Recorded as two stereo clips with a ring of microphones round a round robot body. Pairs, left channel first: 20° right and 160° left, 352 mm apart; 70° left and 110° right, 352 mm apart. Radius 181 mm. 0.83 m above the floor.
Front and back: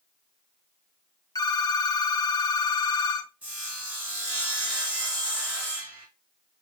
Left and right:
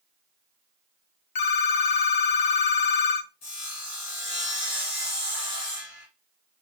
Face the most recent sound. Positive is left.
turn(degrees=70)